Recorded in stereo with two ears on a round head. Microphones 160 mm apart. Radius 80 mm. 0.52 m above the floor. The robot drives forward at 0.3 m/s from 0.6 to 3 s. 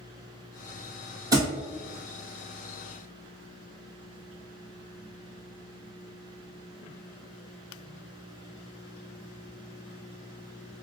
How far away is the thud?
About 1.4 m.